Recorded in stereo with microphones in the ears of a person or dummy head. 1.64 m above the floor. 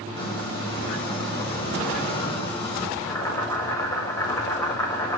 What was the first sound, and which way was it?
A squeak, 25° left (ahead or behind).